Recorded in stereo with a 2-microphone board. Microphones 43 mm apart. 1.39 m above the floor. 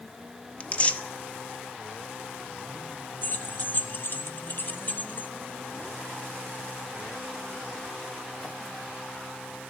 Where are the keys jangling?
45° left (ahead or behind), 0.9 m.